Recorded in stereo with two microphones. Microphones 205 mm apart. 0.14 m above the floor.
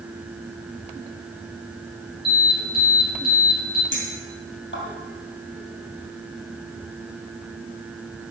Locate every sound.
2.2 s an alarm: 25° right (ahead or behind), 3.5 m
3.9 s a clink: 65° left (ahead or behind), 2.5 m